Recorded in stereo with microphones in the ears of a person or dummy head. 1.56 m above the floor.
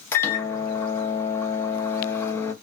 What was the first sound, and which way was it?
A microwave, 15° left (ahead or behind).